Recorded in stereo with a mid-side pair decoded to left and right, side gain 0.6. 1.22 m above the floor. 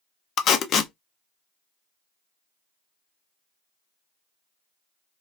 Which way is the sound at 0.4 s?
50° left.